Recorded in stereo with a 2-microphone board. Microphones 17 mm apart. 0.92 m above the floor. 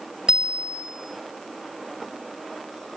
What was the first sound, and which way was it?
A bicycle bell, 80° right.